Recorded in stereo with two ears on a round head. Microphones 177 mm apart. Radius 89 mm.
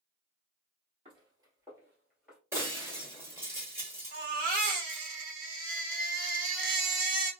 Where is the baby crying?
40° right (ahead or behind), 1.1 m.